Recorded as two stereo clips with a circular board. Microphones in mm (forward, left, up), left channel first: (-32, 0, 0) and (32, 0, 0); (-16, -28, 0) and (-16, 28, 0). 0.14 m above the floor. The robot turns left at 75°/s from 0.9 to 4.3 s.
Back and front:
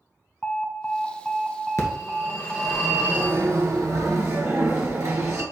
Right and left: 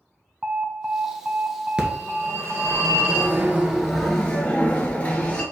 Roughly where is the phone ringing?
Behind.